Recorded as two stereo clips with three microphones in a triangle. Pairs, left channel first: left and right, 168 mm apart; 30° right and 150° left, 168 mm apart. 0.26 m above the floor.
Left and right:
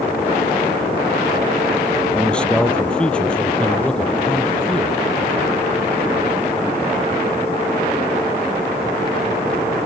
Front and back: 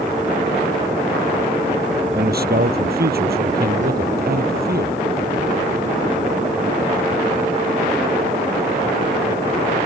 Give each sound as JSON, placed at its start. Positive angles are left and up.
{"t": 2.1, "sound": "a man speaking", "azimuth_deg": 175}